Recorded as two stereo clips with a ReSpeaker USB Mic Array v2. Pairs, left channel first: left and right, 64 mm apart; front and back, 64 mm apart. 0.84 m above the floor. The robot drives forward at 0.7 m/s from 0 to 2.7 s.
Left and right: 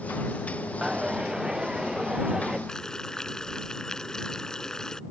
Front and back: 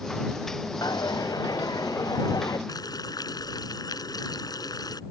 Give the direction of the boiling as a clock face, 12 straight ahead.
12 o'clock.